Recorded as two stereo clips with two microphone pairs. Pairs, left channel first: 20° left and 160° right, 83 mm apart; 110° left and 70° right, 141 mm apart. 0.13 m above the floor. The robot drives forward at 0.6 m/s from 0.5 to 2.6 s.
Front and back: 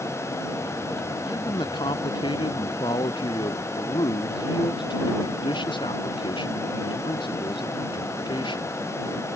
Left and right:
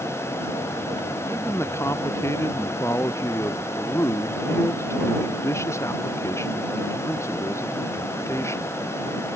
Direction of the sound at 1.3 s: 40° left.